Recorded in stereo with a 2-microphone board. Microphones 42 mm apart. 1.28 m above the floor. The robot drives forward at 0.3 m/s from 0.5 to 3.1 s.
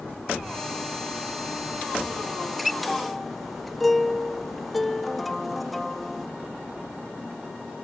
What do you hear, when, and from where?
2.4 s a guitar: centre (ahead or behind)